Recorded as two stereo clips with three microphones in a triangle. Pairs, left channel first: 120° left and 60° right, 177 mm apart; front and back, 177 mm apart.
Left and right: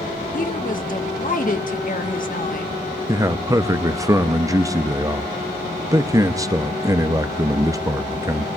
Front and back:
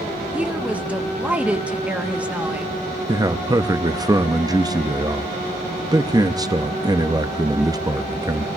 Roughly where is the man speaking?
Behind right.